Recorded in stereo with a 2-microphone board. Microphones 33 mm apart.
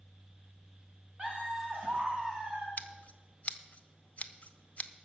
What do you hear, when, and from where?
1.2 s laughter: 40° right (ahead or behind), 4 m
2.8 s scissors: 45° left (ahead or behind), 0.7 m